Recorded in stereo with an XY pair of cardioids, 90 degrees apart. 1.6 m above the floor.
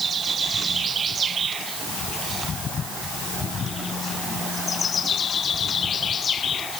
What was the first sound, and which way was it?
Only background noise.